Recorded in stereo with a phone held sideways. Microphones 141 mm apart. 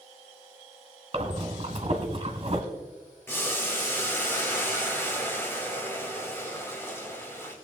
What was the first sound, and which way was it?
Breathing, 40° right (ahead or behind).